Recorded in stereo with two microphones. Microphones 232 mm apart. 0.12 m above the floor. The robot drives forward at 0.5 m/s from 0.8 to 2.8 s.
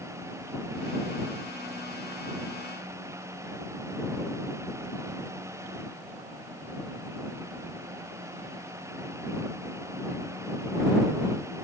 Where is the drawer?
I don't hear a drawer.